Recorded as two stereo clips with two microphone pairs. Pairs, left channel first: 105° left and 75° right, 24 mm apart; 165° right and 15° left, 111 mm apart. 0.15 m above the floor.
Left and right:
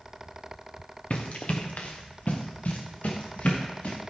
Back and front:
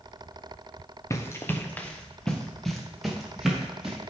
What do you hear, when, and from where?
1.1 s running footsteps: 130° left, 1.4 m; by 4.0 s 100° left, 3 m